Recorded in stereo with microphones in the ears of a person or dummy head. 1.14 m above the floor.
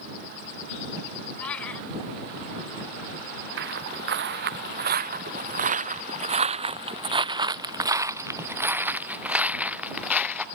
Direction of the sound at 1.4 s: 5° left (ahead or behind).